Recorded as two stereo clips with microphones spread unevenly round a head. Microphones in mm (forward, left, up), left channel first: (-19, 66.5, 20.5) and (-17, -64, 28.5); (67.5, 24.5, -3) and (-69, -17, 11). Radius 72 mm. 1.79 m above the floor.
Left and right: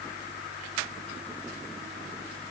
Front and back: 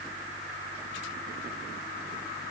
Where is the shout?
No shout in this recording.